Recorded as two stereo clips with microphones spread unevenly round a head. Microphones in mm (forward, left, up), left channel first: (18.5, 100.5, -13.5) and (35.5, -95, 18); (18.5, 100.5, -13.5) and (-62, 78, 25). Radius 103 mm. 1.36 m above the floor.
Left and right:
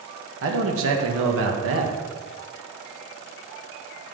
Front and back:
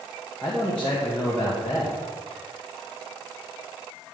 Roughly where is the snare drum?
No snare drum in this recording.